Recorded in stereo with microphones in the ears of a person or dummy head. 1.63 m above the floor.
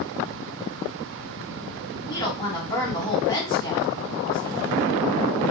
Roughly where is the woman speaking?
Left.